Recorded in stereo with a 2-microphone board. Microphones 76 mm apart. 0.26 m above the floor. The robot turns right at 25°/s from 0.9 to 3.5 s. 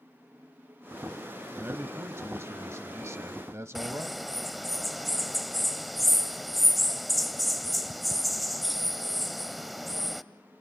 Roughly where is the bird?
Centre.